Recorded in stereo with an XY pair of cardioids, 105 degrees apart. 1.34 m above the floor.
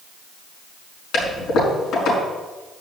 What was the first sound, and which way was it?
A toilet flushing, 65° left.